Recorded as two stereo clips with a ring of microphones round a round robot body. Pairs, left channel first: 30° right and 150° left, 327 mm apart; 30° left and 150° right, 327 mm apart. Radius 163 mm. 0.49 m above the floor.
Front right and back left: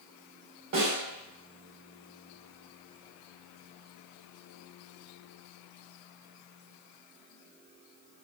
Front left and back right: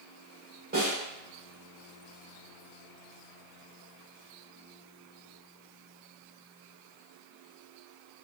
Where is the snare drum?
150° left, 1.1 m.